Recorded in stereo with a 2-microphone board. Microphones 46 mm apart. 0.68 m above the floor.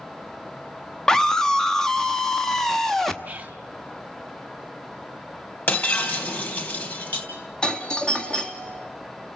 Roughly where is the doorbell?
Left.